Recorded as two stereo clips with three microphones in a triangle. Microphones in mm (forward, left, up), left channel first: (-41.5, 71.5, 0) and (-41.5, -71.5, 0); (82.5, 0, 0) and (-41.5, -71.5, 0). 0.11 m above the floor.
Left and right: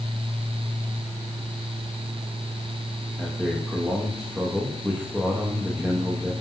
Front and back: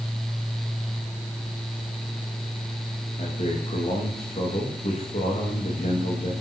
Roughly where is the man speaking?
Ahead.